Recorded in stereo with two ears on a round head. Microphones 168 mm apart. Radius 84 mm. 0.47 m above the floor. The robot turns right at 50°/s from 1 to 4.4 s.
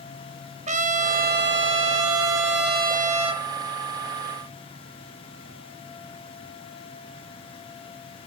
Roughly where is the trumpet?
Behind right.